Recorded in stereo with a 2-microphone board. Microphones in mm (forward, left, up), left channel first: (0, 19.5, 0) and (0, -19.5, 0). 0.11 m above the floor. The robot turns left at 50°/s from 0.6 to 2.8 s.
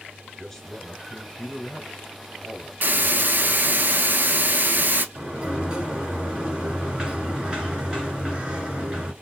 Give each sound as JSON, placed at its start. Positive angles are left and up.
{"t": 0.4, "sound": "a man speaking", "side_deg": 10, "distance_m": 1.2}
{"t": 2.8, "sound": "a hiss", "side_deg": -50, "distance_m": 0.7}
{"t": 5.2, "sound": "a sliding door", "side_deg": -20, "distance_m": 1.7}